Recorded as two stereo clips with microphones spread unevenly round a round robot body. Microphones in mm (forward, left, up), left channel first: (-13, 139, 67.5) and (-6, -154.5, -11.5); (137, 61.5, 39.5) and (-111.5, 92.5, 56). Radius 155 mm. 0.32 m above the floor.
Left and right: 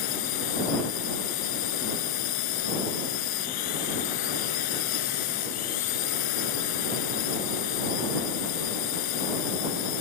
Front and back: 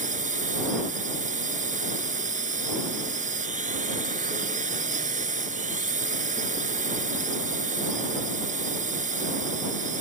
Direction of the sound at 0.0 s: 110° left.